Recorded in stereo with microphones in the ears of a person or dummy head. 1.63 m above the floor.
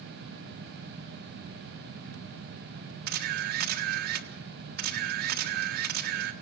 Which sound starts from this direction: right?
A camera shutter, at 3.1 s.